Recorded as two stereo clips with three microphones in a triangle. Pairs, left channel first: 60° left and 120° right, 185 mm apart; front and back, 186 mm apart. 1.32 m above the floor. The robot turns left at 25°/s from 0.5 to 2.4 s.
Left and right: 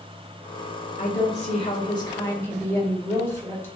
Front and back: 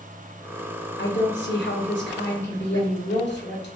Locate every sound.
1.0 s a woman speaking: 15° left, 1.2 m; by 3.7 s 20° right, 1.2 m